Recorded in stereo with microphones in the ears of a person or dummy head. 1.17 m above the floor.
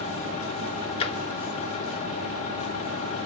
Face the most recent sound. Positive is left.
turn(degrees=35)  # may be behind; listen again after turning